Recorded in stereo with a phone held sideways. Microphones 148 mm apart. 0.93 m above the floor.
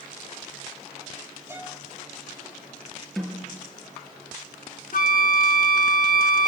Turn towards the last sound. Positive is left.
turn(degrees=70)  # may be behind; listen again after turning